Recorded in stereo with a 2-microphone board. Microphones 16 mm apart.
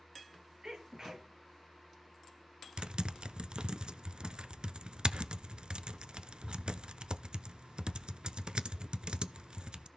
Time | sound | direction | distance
0.6 | a sneeze | 40° right (ahead or behind) | 4.5 m
2.8 | typing on a keyboard | 60° right (ahead or behind) | 0.7 m